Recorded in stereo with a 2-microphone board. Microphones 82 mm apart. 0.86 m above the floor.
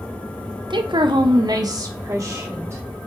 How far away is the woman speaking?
About 0.9 m.